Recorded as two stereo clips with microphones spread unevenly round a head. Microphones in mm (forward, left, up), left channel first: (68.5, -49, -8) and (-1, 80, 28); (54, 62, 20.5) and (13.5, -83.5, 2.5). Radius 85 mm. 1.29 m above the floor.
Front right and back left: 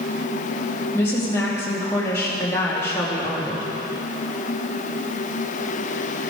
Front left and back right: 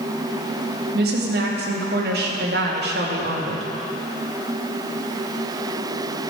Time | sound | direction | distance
0.9 | a woman speaking | 140° right | 2.5 m